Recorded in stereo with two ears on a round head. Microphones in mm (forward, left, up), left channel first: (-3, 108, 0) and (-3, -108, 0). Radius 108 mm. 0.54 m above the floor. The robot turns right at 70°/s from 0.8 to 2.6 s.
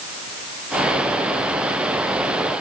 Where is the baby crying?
No baby crying in this recording.